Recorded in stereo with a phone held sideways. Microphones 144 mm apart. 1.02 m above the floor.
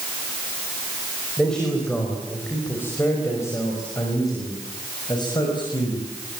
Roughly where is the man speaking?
Centre.